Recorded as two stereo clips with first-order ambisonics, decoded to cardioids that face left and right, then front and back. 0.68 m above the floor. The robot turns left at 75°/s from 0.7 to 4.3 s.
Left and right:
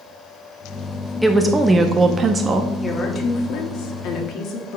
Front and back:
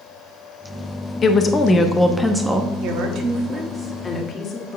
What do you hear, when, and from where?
1.2 s a woman speaking: 5° right, 0.5 m; by 2.7 s 115° right, 0.5 m
2.8 s a woman speaking: 170° left, 1.3 m; by 4.8 s 60° left, 1.3 m